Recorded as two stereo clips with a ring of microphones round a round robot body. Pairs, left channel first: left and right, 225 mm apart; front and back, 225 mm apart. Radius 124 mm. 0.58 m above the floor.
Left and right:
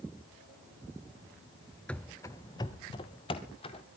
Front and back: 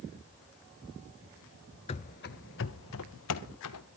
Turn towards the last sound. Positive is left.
turn(degrees=20)